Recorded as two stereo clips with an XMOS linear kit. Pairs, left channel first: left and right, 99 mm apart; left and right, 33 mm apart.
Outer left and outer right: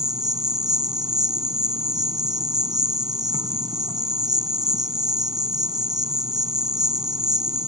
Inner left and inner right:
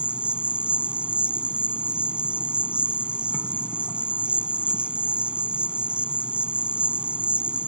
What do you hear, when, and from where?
0.0 s an insect: 40° right (ahead or behind)